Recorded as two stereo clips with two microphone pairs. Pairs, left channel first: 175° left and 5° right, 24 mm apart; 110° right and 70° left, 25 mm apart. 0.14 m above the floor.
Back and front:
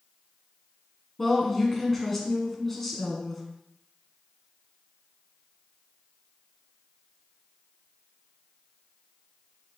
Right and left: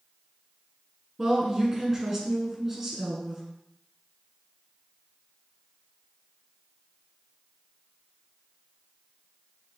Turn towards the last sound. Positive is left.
turn(degrees=110)